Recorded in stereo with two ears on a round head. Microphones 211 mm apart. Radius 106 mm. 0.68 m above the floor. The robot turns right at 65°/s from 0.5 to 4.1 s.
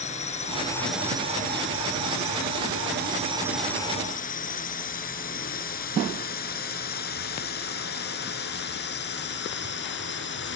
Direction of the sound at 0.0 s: 30° left (ahead or behind).